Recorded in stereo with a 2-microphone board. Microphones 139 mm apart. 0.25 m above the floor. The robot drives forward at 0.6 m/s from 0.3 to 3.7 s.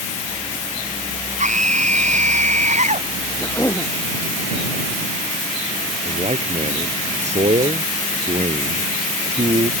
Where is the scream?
60° right (ahead or behind).